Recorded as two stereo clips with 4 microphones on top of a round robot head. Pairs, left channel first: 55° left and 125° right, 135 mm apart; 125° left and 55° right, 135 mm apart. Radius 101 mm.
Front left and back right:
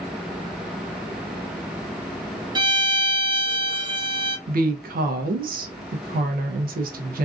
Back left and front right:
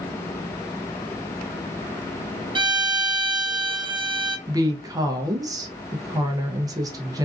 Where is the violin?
85° right, 0.6 m.